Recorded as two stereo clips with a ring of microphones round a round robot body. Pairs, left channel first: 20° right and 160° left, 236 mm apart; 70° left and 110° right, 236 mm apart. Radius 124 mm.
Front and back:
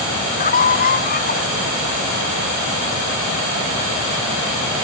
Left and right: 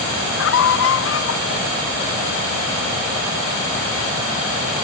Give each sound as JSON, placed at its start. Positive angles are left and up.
{"t": 0.4, "sound": "a scream", "azimuth_deg": 35}